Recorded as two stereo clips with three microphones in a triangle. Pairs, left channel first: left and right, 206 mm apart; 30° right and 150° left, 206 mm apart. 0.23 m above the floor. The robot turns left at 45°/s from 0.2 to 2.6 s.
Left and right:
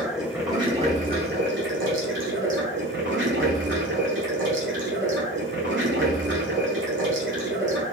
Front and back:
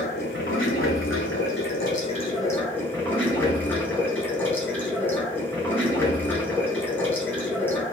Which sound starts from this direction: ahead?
Running water, at 0.0 s.